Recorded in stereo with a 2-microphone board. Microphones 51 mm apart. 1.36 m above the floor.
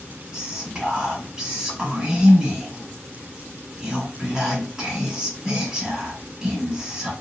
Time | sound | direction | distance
0.3 | whispering | 20° right (ahead or behind) | 1.5 m